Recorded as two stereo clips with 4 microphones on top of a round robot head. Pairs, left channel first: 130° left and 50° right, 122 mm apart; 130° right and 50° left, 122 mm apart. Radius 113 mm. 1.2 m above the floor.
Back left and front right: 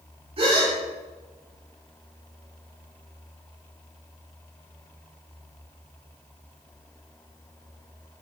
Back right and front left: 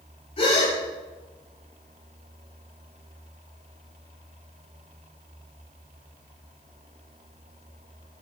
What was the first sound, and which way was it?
A gasp, 90° right.